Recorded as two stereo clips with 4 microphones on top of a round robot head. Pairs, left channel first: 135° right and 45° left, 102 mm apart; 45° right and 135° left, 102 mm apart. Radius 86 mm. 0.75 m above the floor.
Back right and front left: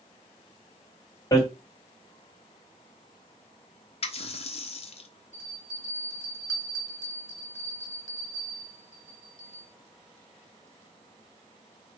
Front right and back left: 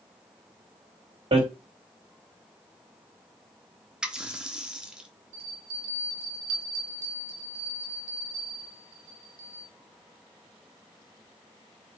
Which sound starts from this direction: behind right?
A running tap, at 4.0 s.